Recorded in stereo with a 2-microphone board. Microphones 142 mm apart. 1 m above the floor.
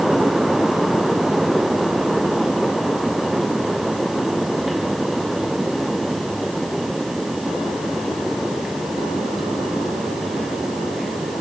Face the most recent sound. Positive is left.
No sound to turn to.